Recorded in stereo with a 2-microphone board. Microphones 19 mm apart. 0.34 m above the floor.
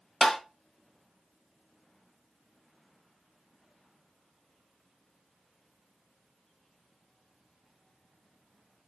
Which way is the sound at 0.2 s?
20° left (ahead or behind).